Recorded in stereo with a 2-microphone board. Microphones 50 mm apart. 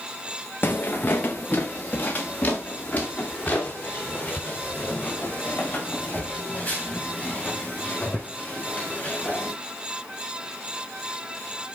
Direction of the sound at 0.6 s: 40° left (ahead or behind).